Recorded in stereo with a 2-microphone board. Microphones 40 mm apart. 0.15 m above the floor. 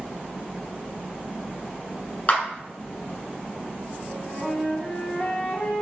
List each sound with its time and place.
2.3 s a clap: 40° left (ahead or behind), 1.2 m
4.1 s a flute: 35° left (ahead or behind), 1.0 m